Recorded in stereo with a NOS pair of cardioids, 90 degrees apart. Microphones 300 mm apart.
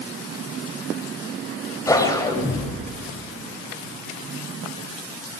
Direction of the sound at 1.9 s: 10° left.